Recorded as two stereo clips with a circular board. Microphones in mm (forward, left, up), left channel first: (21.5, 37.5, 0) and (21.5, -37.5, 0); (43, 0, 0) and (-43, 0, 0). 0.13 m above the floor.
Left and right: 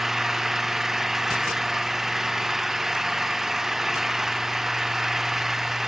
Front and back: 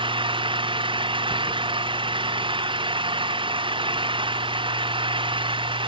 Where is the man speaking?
No man speaking in this recording.